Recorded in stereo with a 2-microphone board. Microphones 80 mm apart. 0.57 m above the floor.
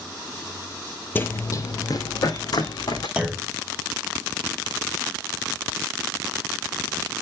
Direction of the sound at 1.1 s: 25° left (ahead or behind).